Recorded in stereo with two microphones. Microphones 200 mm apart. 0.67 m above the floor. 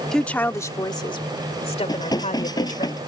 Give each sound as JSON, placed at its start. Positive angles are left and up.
{"t": 0.1, "sound": "a woman speaking", "side_deg": 0}
{"t": 1.9, "sound": "dishes clattering", "side_deg": 20}